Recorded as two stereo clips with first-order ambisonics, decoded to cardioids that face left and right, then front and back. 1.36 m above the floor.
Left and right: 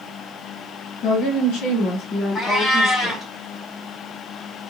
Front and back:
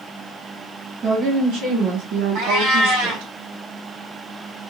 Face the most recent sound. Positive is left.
turn(degrees=170)